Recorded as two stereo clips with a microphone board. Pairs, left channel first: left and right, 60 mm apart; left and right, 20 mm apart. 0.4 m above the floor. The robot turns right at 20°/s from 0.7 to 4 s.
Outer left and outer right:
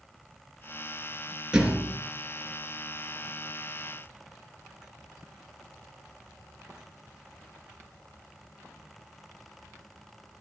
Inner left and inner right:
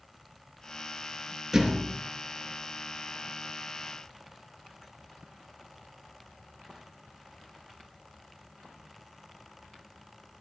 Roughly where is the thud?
Centre.